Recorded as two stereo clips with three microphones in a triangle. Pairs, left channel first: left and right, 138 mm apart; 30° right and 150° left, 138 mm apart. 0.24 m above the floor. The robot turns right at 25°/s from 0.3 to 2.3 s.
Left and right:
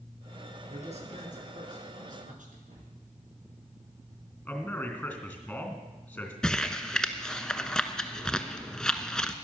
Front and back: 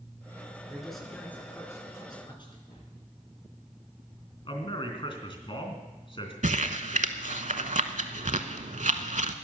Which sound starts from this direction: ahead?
A man speaking, at 4.5 s.